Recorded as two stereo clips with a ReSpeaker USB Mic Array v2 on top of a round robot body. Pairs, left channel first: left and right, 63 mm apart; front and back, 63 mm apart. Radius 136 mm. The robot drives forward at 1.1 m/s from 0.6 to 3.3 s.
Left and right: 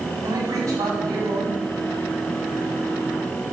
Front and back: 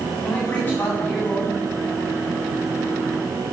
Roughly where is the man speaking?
Ahead right.